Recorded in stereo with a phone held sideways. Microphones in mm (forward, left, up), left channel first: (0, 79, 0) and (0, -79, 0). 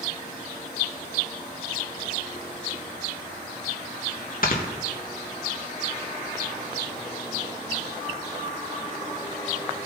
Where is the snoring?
65° left (ahead or behind), 1.7 m.